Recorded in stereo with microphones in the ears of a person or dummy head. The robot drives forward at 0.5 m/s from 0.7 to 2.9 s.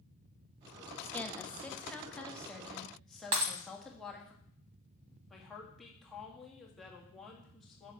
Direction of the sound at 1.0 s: 10° left (ahead or behind).